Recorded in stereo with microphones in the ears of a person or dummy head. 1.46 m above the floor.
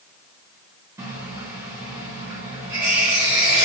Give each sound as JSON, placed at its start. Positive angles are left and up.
{"t": 1.0, "sound": "a running tap", "side_deg": -10, "distance_m": 0.8}